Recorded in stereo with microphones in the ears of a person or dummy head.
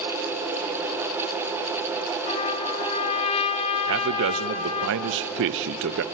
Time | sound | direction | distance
2.3 | a trumpet | 35° left (ahead or behind) | 1.5 m
3.9 | a man speaking | 60° right (ahead or behind) | 0.7 m